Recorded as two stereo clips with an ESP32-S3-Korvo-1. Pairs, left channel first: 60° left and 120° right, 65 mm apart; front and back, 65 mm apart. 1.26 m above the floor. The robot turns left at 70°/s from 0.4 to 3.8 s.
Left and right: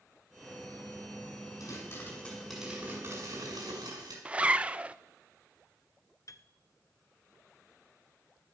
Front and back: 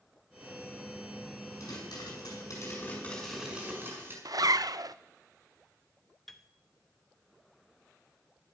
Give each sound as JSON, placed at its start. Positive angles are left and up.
{"t": 1.6, "sound": "a pop", "azimuth_deg": 30, "distance_m": 6.5}
{"t": 4.2, "sound": "a zipper", "azimuth_deg": 170, "distance_m": 0.5}
{"t": 6.3, "sound": "a piano", "azimuth_deg": 85, "distance_m": 0.8}